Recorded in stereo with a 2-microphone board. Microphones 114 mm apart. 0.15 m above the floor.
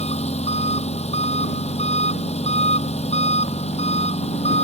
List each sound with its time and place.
0.0 s an engine running: 75° left (ahead or behind)